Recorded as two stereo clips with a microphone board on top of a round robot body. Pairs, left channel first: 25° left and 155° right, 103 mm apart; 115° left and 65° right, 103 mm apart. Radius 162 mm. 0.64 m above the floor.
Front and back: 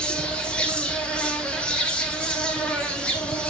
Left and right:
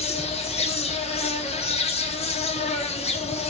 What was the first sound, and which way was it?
An insect, 105° left.